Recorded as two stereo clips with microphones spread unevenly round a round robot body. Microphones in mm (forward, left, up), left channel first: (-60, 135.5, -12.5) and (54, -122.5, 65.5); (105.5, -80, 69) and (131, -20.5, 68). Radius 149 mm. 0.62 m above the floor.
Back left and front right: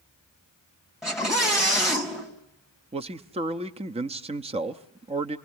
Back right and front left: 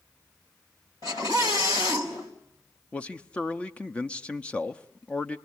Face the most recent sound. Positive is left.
turn(degrees=-145)